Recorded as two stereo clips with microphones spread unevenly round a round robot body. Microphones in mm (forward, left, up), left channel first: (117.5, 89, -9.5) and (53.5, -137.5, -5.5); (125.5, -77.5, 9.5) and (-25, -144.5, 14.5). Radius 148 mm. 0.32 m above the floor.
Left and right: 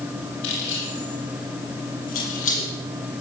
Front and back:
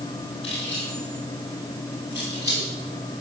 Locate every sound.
0.4 s keys jangling: 95° left, 6.5 m; by 2.7 s 130° left, 5.5 m